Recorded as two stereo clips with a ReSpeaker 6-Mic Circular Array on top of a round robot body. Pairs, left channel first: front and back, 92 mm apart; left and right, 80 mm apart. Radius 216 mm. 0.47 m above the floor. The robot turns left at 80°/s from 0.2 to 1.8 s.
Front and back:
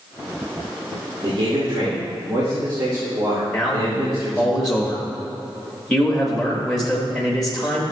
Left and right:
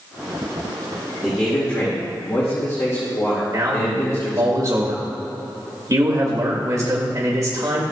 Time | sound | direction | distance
1.2 | a man speaking | 175° right | 2 m
3.5 | a man speaking | 85° right | 1.6 m